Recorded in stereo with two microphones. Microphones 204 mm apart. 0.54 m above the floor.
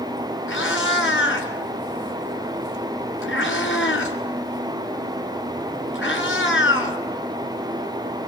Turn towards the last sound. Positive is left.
turn(degrees=80)